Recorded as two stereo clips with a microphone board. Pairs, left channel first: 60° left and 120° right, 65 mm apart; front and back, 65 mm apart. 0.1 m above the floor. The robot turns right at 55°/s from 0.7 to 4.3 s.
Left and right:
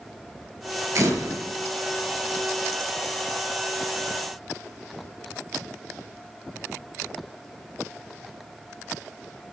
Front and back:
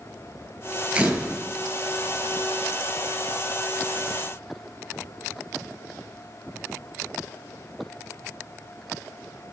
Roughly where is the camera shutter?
Behind right.